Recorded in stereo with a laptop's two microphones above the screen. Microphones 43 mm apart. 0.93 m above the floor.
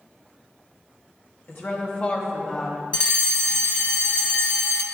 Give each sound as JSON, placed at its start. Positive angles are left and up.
{"t": 1.5, "sound": "a woman speaking", "side_deg": 55, "distance_m": 1.2}
{"t": 2.9, "sound": "a fire alarm", "side_deg": 25, "distance_m": 1.4}